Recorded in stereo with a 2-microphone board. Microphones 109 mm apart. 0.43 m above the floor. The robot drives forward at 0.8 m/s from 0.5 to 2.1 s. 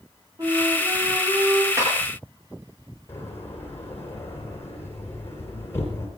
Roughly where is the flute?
Right.